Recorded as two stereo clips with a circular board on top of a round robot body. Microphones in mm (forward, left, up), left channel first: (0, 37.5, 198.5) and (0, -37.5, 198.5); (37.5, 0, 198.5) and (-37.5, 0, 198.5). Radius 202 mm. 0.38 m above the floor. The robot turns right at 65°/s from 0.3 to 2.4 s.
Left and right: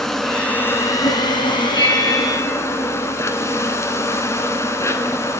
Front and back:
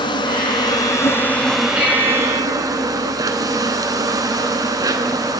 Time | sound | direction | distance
0.0 | an insect | 5° left | 1.2 m
1.8 | a bell | 110° left | 7.5 m